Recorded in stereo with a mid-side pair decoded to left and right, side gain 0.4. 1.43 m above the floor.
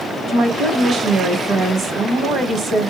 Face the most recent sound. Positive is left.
turn(degrees=-70)